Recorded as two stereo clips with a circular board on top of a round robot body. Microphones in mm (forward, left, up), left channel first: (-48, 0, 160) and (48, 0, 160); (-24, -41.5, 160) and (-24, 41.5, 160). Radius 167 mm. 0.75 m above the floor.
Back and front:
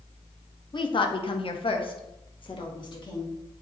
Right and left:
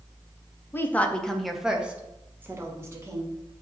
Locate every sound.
0.7 s a woman speaking: 150° right, 0.9 m; by 3.3 s 140° left, 1.5 m